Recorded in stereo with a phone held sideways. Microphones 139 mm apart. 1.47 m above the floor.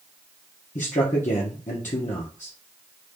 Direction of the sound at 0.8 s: 60° left (ahead or behind).